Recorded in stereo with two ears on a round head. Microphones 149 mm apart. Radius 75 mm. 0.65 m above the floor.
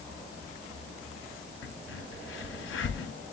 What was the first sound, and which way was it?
A crack, 85° left.